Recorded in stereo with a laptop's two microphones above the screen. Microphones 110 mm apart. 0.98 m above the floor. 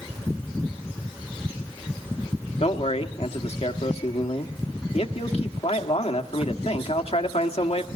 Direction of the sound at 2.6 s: 65° left (ahead or behind).